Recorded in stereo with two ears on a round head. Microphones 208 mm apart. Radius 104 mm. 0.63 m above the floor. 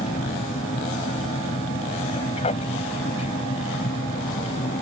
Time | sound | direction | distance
0.0 | an aircraft | 30° left (ahead or behind) | ?